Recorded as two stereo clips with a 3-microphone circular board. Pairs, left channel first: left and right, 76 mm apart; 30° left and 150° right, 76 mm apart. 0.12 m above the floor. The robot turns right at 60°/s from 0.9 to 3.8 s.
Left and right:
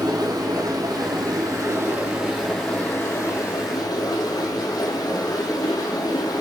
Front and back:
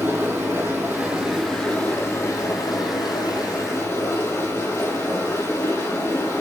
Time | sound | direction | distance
0.0 | running water | 90° right | 3 m